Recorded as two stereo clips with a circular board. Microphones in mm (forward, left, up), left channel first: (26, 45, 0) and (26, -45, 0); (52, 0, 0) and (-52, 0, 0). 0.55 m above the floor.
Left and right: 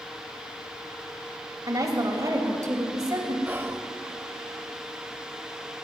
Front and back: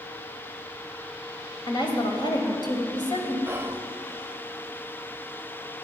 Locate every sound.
1.7 s a woman speaking: 40° right, 2.5 m
3.5 s whispering: 130° right, 0.8 m